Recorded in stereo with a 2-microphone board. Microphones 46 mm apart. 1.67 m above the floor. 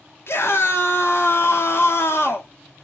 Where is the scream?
60° left (ahead or behind), 1.0 m.